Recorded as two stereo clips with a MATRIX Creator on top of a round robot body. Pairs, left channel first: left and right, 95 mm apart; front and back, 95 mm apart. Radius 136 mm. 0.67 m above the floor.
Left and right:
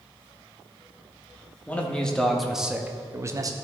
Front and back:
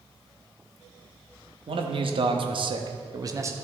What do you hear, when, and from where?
1.7 s a man speaking: 165° left, 1.4 m; by 3.5 s 125° right, 0.9 m